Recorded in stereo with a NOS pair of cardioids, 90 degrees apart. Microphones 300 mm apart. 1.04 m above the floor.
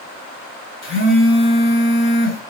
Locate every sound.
0.8 s a phone buzzing: 40° left, 6 m